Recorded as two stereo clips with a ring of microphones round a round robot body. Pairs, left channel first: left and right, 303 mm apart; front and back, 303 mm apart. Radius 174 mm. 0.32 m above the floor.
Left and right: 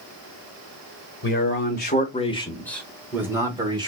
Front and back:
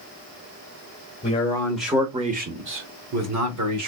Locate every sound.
1.2 s a man speaking: 60° left, 1.2 m; by 3.9 s 165° right, 1.8 m